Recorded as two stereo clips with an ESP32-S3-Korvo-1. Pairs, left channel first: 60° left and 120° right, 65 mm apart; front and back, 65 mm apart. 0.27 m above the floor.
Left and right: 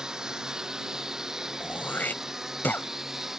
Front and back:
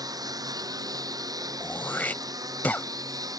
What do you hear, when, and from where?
0.0 s a lawn mower: 160° left; by 3.4 s 155° left
1.6 s throat clearing: 35° left